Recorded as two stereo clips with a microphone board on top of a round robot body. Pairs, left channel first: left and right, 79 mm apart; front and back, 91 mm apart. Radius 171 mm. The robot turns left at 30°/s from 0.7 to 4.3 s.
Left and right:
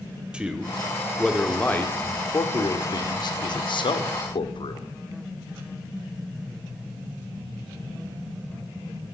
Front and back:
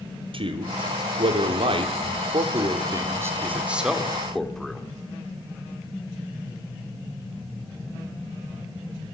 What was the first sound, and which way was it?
A man speaking, 165° right.